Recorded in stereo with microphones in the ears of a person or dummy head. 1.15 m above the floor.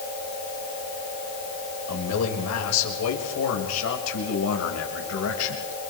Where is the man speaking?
80° left, 5.5 m; by 5.9 s 85° left, 7 m.